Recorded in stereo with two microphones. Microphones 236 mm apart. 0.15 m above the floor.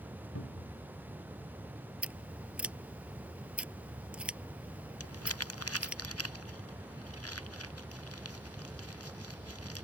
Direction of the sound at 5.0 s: 80° left.